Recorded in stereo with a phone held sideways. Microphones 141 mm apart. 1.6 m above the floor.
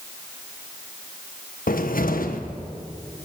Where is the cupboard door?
75° left (ahead or behind), 1.3 m.